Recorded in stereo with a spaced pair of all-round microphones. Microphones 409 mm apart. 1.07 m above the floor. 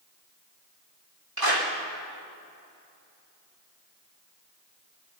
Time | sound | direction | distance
1.4 | a clap | 60° right (ahead or behind) | 3.5 m